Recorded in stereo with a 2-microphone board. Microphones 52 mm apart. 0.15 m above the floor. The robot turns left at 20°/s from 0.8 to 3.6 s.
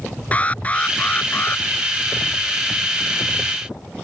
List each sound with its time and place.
0.3 s an alarm: 25° left (ahead or behind); by 1.6 s 40° left (ahead or behind)